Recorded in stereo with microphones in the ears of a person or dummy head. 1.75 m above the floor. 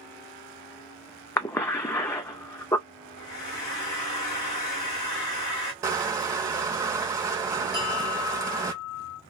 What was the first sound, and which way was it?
A cough, 20° left (ahead or behind).